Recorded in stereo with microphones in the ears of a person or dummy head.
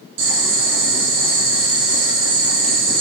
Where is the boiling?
70° right (ahead or behind), 8 m.